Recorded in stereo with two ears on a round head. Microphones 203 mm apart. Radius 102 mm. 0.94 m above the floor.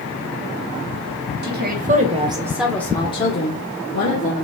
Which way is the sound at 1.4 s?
50° right (ahead or behind).